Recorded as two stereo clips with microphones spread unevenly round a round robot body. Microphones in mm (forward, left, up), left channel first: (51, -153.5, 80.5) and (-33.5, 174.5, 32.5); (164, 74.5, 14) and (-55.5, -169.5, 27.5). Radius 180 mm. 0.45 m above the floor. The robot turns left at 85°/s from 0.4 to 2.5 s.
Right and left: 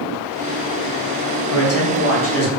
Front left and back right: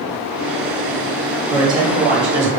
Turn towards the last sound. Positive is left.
turn(degrees=-130)